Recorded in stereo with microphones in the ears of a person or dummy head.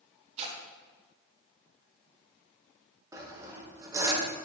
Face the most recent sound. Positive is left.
turn(degrees=-20)  # may be behind; listen again after turning